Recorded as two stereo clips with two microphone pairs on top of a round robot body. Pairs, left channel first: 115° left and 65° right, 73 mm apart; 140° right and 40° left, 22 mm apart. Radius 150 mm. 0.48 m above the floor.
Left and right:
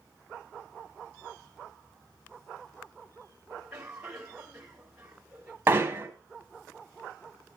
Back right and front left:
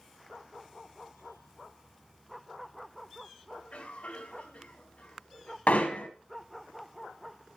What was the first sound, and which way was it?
A cough, 145° right.